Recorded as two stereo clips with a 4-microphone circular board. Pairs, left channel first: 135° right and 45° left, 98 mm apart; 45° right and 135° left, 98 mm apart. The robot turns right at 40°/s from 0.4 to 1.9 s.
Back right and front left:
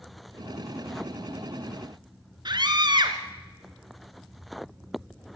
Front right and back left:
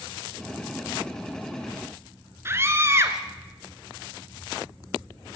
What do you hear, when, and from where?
2.5 s a scream: 75° left, 3 m